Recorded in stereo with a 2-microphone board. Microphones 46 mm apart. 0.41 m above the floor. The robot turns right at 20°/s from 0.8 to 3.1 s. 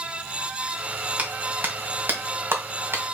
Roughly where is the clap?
Right.